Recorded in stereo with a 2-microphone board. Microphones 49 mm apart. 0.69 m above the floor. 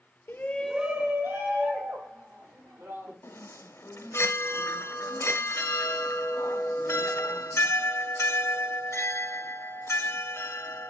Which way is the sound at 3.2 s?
80° left.